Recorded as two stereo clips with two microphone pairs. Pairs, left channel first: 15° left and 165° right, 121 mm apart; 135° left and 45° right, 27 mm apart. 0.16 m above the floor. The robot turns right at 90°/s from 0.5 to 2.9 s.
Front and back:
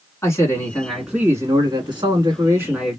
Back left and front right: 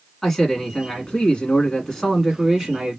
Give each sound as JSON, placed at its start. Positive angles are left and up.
{"t": 0.2, "sound": "a man speaking", "azimuth_deg": 65, "distance_m": 1.5}